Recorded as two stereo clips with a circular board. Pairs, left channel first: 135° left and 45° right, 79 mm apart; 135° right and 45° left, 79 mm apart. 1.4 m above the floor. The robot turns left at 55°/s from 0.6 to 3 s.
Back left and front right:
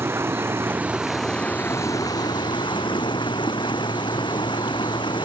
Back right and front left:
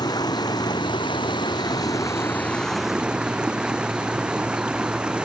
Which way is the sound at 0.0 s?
105° right.